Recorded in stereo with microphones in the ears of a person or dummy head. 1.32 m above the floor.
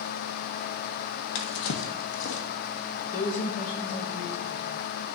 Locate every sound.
1.4 s a drawer: 65° left (ahead or behind), 1.0 m
3.1 s a woman speaking: 50° left (ahead or behind), 4.5 m